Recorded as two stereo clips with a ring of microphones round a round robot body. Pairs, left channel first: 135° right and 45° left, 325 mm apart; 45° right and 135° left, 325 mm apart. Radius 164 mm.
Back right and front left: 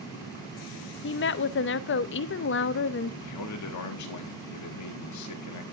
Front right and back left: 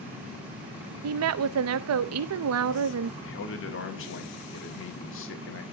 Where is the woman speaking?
175° left, 0.5 m.